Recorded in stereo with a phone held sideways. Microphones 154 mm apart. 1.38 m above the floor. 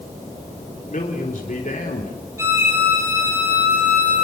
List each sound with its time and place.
0.9 s a man speaking: 55° left (ahead or behind), 3.5 m
2.4 s a violin: 15° right (ahead or behind), 8 m